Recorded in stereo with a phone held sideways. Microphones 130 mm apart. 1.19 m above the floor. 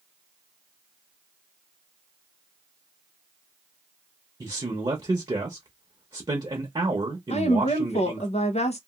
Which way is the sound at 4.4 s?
35° right (ahead or behind).